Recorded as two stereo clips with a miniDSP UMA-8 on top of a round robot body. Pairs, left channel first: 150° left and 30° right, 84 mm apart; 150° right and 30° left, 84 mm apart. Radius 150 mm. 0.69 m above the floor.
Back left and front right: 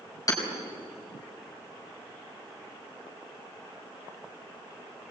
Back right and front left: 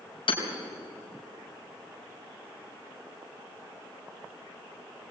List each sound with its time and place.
0.3 s hammering: 155° right, 4.5 m